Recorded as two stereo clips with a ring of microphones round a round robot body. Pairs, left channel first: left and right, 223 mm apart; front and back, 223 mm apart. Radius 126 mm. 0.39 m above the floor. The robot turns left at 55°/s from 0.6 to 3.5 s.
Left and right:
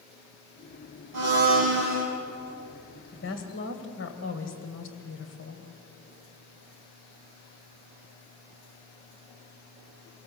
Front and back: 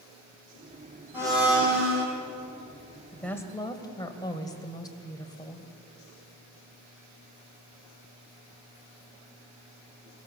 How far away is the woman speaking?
About 2 m.